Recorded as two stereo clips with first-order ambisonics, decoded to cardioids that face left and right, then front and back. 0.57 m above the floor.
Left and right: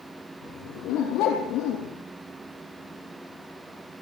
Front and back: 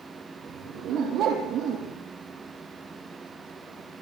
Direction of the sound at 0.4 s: 130° left.